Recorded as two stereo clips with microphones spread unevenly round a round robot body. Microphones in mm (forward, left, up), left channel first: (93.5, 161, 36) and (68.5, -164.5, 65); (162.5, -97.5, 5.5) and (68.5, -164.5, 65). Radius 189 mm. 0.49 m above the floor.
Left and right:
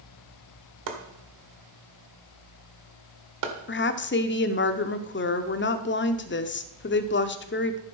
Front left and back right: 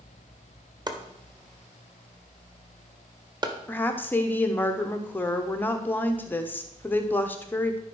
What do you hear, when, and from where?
0.9 s chopping: 75° right, 1.8 m
3.7 s a woman speaking: 55° left, 0.9 m